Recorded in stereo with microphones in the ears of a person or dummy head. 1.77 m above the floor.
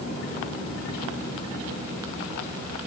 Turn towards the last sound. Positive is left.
No sound to turn to.